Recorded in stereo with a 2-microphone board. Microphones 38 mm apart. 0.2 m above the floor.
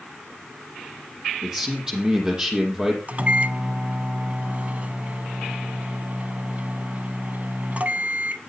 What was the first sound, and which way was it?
A man speaking, 20° right (ahead or behind).